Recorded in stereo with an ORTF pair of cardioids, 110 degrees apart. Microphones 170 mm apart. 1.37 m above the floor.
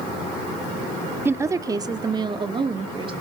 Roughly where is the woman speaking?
Ahead.